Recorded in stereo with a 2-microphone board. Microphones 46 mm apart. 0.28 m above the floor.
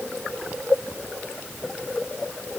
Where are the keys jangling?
I don't hear keys jangling.